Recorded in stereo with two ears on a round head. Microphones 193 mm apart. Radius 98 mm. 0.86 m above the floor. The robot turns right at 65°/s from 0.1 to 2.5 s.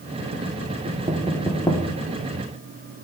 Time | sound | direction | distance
0.8 | knocking | 35° right (ahead or behind) | 1.3 m